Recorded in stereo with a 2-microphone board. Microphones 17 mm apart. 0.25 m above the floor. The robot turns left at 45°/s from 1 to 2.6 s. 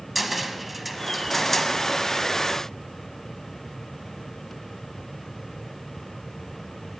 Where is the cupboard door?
175° right, 0.8 m; by 1.7 s 150° left, 0.8 m.